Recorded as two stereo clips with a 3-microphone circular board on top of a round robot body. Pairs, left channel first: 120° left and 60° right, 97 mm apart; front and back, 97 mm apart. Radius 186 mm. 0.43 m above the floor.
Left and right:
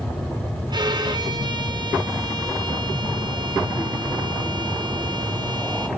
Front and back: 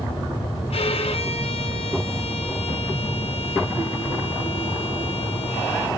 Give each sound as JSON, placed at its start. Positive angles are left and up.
{"t": 0.7, "sound": "a violin", "azimuth_deg": -15, "distance_m": 2.0}